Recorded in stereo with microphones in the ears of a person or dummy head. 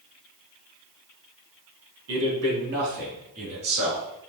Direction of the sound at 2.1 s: 75° right (ahead or behind).